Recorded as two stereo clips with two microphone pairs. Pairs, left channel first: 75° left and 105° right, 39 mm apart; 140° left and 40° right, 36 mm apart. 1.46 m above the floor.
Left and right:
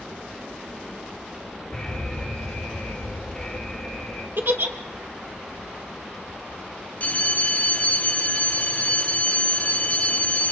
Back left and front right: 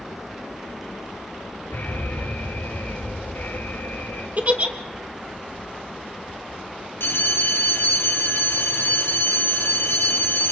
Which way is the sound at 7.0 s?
125° left.